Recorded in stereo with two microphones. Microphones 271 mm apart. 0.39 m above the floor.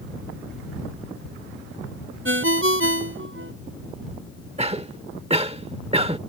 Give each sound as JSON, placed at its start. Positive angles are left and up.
{"t": 2.2, "sound": "a ringtone", "side_deg": -50}
{"t": 4.6, "sound": "a cough", "side_deg": -20}